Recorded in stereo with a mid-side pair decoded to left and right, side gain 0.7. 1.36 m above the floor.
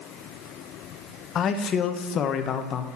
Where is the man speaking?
40° left, 1.0 m.